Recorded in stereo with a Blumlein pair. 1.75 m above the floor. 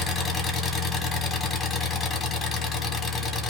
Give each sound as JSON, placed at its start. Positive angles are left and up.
{"t": 0.0, "sound": "an engine running", "azimuth_deg": 25, "distance_m": 1.4}